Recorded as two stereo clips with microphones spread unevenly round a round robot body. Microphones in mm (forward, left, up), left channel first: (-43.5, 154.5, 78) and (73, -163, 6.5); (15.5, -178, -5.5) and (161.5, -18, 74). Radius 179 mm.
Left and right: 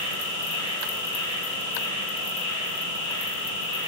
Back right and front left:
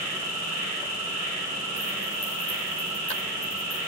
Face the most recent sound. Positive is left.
turn(degrees=35)